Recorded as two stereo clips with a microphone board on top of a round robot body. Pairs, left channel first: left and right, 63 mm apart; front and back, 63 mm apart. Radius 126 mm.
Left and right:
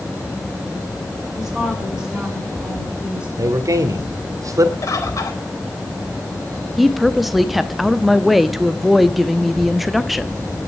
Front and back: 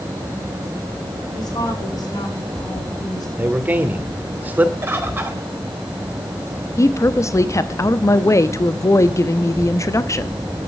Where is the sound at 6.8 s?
Straight ahead, 1.0 m.